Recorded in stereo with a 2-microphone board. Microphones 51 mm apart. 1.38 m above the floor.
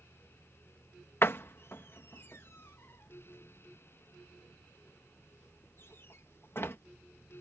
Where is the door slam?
50° left (ahead or behind).